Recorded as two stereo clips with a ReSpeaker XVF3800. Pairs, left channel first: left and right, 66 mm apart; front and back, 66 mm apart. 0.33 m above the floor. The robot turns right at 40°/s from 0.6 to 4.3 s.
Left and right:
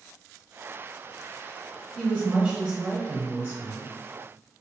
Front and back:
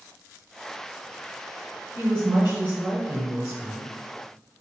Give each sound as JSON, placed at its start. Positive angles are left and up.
{"t": 1.9, "sound": "a woman speaking", "azimuth_deg": 180, "distance_m": 1.4}